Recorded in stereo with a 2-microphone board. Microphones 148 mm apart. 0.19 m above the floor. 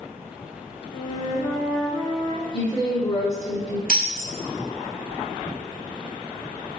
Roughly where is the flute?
Left.